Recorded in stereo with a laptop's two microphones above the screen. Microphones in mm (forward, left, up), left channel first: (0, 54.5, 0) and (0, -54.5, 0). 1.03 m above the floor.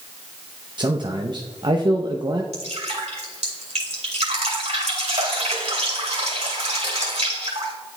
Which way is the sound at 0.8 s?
45° right (ahead or behind).